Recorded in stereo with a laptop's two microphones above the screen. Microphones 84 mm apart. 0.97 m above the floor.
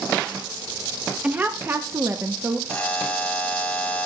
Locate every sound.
1.2 s a woman speaking: 15° right (ahead or behind), 0.9 m; by 2.6 s 35° right (ahead or behind), 1.1 m
2.7 s a buzzer: 15° left (ahead or behind), 1.1 m